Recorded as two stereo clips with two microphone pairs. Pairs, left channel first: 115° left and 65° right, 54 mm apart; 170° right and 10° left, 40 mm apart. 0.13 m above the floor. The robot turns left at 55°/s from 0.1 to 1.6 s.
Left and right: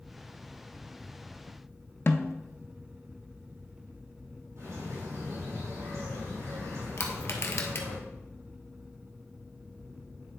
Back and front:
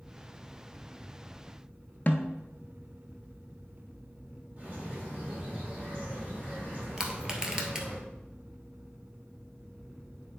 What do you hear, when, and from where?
2.1 s a snare drum: 150° left, 0.7 m
4.6 s a bird: 40° right, 3.5 m
7.0 s crushing: 85° left, 1.2 m